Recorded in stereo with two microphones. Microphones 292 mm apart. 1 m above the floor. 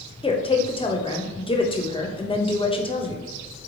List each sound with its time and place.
0.2 s a woman speaking: 20° left (ahead or behind), 0.6 m